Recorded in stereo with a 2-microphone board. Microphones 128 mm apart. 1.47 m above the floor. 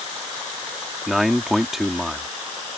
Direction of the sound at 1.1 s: Centre (ahead or behind).